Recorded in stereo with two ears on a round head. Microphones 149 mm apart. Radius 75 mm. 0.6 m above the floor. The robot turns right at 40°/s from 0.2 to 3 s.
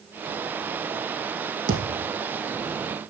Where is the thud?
65° right (ahead or behind), 5.5 m; by 2.1 s 85° right, 5.5 m.